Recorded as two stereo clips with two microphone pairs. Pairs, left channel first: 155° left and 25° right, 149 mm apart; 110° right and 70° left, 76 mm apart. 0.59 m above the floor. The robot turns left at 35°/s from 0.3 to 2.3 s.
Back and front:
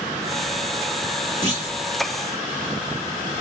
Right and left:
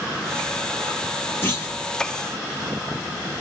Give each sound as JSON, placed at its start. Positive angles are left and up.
{"t": 1.4, "sound": "a clunk", "azimuth_deg": -160, "distance_m": 1.5}